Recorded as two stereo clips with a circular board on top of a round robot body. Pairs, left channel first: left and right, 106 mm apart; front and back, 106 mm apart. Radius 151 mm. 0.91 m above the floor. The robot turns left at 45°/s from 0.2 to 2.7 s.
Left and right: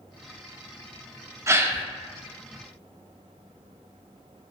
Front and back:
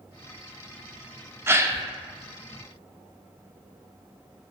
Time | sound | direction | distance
1.5 | a gasp | 130° right | 0.5 m